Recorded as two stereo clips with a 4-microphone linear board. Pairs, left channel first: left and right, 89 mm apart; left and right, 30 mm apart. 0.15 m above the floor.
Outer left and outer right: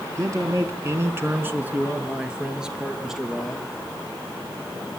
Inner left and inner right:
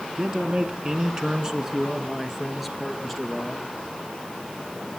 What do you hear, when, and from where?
0.1 s a man speaking: 35° right (ahead or behind), 1.2 m; by 3.7 s centre (ahead or behind), 3 m